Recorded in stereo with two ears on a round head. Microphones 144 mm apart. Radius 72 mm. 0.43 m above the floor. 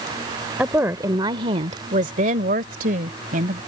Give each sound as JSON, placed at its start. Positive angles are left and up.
{"t": 0.6, "sound": "a woman speaking", "side_deg": -10}